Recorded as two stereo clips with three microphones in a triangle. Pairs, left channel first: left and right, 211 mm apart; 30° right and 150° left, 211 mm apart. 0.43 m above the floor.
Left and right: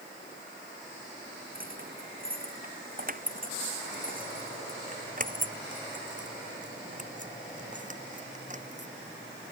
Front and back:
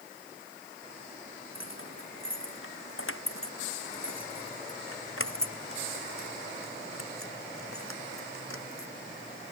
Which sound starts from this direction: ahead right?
Keys jangling, at 1.6 s.